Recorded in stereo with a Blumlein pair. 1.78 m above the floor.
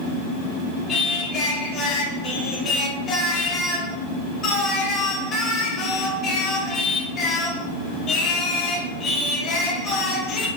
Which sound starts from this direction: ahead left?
Singing, at 0.9 s.